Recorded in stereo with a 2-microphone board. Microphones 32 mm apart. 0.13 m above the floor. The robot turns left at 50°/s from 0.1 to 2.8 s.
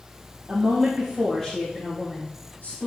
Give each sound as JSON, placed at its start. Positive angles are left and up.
{"t": 0.5, "sound": "a woman speaking", "azimuth_deg": -140, "distance_m": 3.0}